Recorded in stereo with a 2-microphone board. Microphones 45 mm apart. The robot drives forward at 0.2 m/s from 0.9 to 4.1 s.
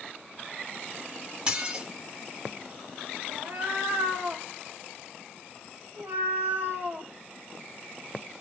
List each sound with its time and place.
1.5 s dishes clattering: 20° right (ahead or behind), 1.1 m
3.3 s a cat meowing: 60° right (ahead or behind), 1.2 m; by 7.1 s 55° right (ahead or behind), 1.3 m